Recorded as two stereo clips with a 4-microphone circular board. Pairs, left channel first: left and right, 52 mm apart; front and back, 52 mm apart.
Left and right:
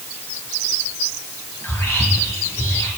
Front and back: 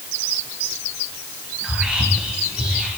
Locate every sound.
1.6 s whispering: 110° left, 2.5 m